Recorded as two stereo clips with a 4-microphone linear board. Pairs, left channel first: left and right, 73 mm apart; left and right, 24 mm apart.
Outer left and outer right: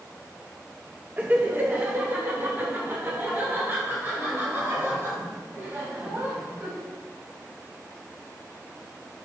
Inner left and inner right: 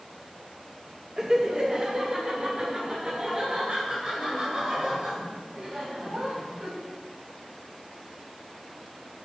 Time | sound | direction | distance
1.2 | laughter | 20° right (ahead or behind) | 0.8 m